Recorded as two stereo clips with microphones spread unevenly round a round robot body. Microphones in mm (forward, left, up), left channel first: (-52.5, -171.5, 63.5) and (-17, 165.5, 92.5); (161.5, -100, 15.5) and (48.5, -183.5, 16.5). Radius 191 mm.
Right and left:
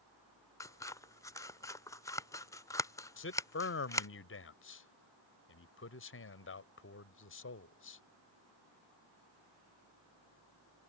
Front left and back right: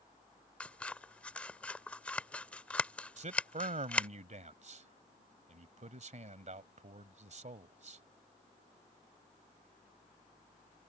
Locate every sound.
0.6 s scissors: 35° right
3.2 s a man speaking: 135° right